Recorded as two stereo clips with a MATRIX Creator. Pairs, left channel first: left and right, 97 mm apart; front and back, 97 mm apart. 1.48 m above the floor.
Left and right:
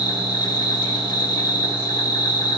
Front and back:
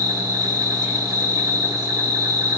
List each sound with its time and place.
0.0 s an insect: 135° left, 1.9 m